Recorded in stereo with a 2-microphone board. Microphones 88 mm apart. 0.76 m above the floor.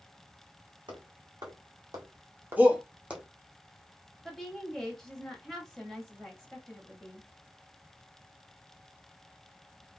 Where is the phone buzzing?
No phone buzzing in this recording.